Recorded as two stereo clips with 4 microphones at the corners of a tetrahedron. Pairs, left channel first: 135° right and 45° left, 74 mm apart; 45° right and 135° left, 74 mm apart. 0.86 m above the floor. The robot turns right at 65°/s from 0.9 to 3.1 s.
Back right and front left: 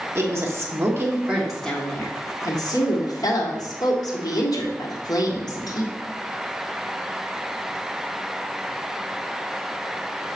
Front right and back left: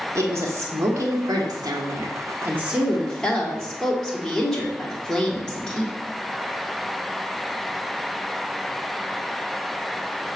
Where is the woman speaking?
90° left, 1.6 m; by 6.0 s 125° right, 1.6 m.